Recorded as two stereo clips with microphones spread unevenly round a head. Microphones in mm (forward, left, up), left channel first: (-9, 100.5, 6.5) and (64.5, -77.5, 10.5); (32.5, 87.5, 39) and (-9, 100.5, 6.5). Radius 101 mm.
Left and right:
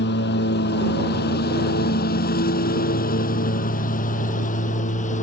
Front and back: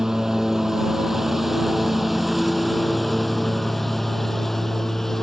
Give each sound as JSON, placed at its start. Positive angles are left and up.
{"t": 0.0, "sound": "a lawn mower", "azimuth_deg": 80}